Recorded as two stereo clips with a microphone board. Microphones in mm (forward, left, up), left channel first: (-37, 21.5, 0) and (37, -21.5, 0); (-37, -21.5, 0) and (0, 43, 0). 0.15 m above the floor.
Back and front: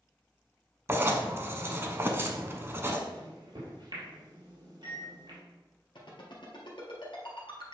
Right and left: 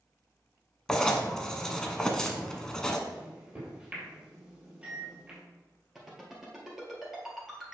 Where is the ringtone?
145° left, 2.5 m.